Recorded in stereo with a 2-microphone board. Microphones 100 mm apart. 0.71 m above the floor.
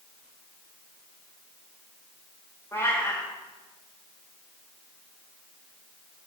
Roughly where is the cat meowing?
Left.